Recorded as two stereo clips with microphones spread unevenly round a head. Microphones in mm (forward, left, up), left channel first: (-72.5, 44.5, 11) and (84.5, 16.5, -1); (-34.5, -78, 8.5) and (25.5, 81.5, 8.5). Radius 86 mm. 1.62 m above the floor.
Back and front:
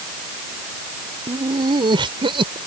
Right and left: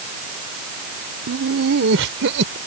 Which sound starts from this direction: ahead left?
Laughter, at 1.3 s.